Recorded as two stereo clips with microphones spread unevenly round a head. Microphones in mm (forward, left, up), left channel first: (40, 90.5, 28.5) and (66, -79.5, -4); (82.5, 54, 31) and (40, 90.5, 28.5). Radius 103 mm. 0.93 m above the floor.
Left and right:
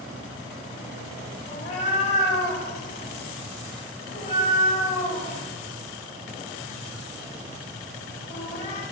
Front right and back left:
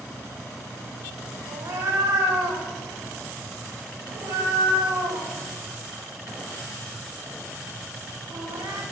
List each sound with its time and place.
1.5 s a cat meowing: 160° left, 2 m